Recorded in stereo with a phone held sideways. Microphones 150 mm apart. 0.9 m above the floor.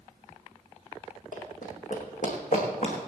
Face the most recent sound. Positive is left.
turn(degrees=60)  # may be behind; listen again after turning